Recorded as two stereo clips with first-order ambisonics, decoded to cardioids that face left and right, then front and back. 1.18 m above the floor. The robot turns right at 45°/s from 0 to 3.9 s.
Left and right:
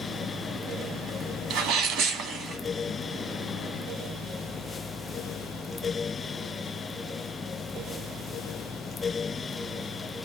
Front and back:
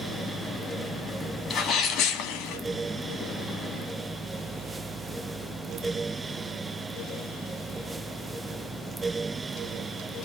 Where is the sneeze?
65° right, 1.9 m; by 2.6 s 15° right, 1.9 m.